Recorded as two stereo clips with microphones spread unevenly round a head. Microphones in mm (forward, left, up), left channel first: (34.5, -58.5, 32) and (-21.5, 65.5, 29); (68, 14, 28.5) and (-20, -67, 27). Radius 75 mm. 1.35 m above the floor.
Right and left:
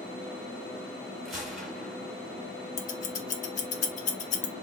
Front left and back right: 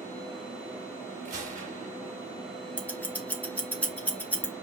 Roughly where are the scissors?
Ahead right.